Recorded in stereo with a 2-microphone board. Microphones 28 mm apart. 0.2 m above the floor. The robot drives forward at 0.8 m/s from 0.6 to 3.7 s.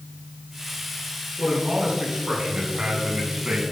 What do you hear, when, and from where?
1.4 s a man speaking: 30° right (ahead or behind), 2.5 m; by 3.6 s 40° right (ahead or behind), 1.8 m